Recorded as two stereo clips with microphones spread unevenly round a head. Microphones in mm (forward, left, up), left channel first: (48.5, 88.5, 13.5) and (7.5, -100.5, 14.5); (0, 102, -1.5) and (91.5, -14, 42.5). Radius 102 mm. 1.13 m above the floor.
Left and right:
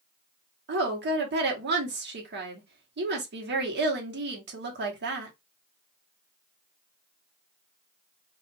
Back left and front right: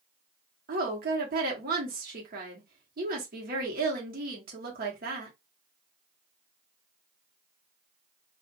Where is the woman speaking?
90° right, 1.1 m.